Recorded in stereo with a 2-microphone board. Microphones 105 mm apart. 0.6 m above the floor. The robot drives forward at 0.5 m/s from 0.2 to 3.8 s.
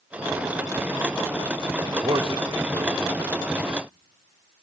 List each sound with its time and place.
1.9 s a man speaking: 50° right (ahead or behind), 1.6 m; by 3.4 s 40° right (ahead or behind), 1.9 m